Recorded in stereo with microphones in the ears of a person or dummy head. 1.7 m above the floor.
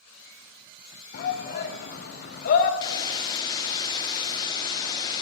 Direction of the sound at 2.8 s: 25° left (ahead or behind).